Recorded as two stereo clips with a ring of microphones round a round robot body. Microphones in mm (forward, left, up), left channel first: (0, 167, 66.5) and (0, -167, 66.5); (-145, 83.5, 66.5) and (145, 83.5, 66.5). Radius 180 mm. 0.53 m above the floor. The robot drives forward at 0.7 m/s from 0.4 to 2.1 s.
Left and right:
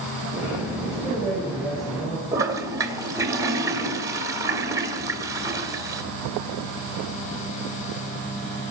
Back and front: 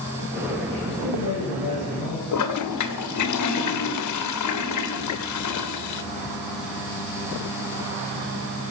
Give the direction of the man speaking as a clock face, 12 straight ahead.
6 o'clock.